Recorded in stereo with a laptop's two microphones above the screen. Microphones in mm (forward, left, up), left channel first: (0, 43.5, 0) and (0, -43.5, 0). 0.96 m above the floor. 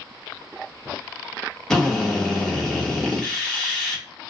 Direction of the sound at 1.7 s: 5° left (ahead or behind).